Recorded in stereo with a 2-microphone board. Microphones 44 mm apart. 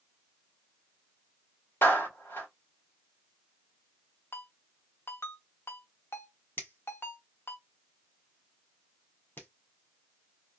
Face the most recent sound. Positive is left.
turn(degrees=55)  # may be behind; listen again after turning